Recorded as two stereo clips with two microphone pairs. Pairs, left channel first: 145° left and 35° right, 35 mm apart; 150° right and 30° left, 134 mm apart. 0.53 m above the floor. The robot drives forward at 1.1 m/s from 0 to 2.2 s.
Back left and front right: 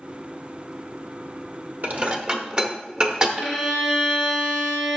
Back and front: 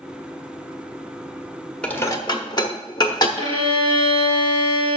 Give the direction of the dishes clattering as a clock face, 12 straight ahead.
2 o'clock.